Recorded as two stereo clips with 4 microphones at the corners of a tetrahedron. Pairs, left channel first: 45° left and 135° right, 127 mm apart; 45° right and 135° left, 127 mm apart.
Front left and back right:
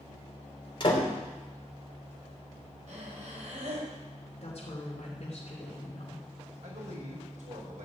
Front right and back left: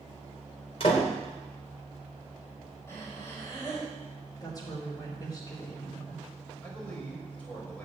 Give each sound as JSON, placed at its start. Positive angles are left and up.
{"t": 0.8, "sound": "a door slam", "azimuth_deg": -5, "distance_m": 3.0}
{"t": 2.9, "sound": "breathing", "azimuth_deg": -115, "distance_m": 5.0}
{"t": 4.4, "sound": "a woman speaking", "azimuth_deg": 10, "distance_m": 3.0}
{"t": 6.6, "sound": "a man speaking", "azimuth_deg": -125, "distance_m": 5.5}